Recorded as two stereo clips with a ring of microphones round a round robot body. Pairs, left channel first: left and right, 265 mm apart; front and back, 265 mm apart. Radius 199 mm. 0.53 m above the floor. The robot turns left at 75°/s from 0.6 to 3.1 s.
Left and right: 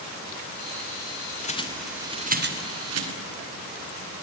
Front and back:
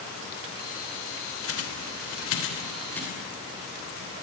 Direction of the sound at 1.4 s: 30° left.